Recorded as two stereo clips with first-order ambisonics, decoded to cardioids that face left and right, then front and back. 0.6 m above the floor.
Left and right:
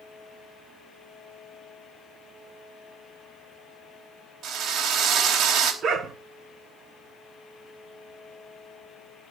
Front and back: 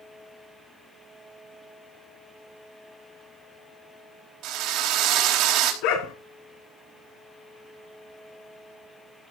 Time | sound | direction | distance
4.4 | a drill | 145° right | 4 m
5.8 | a dog barking | 25° right | 3 m